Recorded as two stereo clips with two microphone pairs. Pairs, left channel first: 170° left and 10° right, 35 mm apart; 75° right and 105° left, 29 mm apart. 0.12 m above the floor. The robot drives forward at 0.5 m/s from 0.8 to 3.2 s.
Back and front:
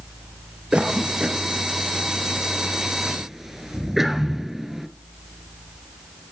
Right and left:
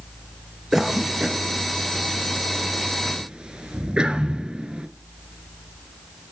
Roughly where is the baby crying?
I don't hear a baby crying.